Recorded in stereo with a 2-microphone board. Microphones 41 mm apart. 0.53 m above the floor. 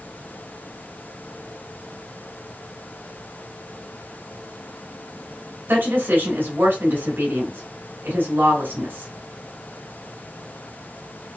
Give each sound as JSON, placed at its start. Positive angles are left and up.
{"t": 5.7, "sound": "a woman speaking", "side_deg": -60, "distance_m": 2.0}